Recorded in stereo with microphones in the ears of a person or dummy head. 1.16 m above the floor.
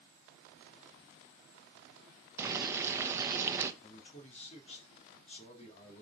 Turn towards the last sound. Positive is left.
turn(degrees=35)  # may be behind; listen again after turning